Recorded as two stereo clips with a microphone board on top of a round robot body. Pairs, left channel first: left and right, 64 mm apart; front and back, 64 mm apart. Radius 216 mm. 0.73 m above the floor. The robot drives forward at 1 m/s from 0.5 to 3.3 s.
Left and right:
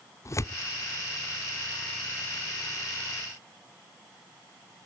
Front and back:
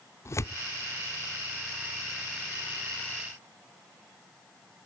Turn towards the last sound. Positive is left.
turn(degrees=140)